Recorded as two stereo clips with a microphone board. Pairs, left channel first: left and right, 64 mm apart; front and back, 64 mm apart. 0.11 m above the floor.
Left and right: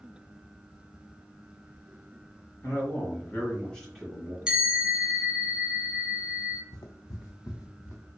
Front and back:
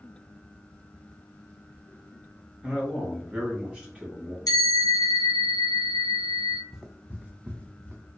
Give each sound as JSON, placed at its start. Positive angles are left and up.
{"t": 2.6, "sound": "a man speaking", "azimuth_deg": 100, "distance_m": 1.8}
{"t": 4.5, "sound": "a bell", "azimuth_deg": -10, "distance_m": 1.1}
{"t": 6.7, "sound": "footsteps", "azimuth_deg": 90, "distance_m": 0.6}